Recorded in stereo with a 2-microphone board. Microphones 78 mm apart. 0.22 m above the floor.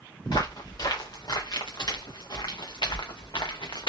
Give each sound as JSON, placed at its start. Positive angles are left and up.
{"t": 0.2, "sound": "footsteps", "side_deg": 65, "distance_m": 2.5}